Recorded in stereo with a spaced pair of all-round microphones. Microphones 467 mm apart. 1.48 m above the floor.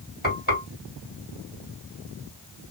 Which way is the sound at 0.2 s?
20° left (ahead or behind).